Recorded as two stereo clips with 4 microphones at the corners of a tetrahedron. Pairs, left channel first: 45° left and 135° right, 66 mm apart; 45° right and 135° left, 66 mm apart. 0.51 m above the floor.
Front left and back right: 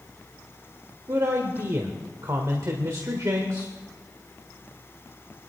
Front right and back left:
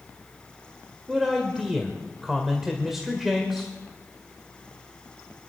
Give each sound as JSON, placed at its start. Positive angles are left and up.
{"t": 1.1, "sound": "a man speaking", "azimuth_deg": -140, "distance_m": 1.5}